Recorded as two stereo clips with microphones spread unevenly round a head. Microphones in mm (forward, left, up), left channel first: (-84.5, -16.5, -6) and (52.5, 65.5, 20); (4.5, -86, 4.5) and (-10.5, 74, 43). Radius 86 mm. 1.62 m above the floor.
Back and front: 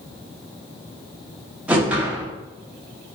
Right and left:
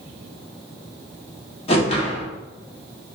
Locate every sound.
1.7 s a whoosh: 30° right, 0.8 m